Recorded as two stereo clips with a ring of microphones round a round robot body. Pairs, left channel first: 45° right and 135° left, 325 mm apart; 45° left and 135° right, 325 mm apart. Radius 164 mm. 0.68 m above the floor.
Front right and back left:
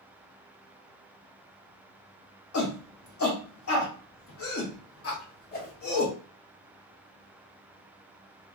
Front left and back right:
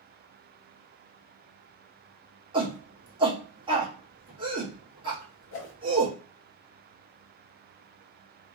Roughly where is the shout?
Ahead right.